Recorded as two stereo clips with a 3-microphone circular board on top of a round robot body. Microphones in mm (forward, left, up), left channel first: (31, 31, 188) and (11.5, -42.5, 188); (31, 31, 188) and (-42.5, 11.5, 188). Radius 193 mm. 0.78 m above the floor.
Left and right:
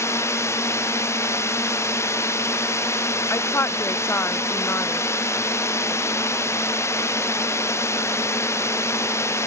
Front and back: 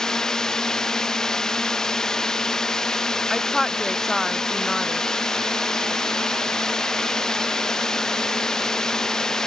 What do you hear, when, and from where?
0.0 s a drone: 95° left
3.3 s a woman speaking: 100° left